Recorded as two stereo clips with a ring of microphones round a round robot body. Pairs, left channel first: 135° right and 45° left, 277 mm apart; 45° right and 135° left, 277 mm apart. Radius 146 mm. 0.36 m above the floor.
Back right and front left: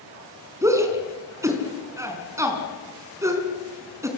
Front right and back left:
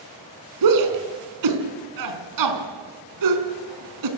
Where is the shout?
125° left, 4.5 m.